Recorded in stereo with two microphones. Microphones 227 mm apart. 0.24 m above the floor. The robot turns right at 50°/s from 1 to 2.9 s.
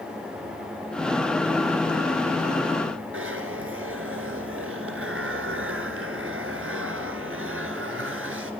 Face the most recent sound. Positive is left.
turn(degrees=-70)  # may be behind; listen again after turning